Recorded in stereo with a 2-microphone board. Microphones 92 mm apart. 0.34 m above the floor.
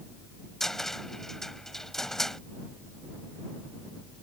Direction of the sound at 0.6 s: 5° left (ahead or behind).